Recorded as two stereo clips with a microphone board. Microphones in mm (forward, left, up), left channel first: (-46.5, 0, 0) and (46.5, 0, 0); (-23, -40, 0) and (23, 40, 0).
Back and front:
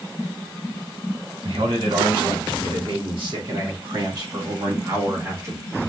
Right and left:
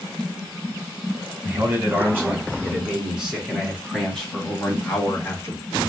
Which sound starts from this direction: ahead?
A man speaking, at 1.4 s.